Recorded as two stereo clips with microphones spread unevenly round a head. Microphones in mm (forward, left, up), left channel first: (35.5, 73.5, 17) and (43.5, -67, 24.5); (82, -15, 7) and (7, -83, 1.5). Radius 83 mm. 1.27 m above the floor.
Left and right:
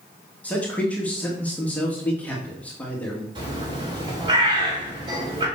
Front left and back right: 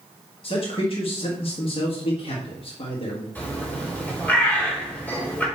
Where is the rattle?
No rattle in this recording.